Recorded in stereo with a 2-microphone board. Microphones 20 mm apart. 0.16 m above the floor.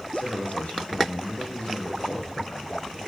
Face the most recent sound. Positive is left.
turn(degrees=80)